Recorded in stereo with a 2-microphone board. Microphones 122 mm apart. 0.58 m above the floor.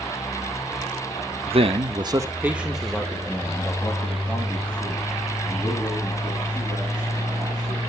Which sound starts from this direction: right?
A man speaking, at 1.5 s.